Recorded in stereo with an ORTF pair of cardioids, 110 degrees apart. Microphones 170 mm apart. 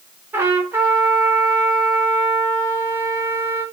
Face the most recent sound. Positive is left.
turn(degrees=-15)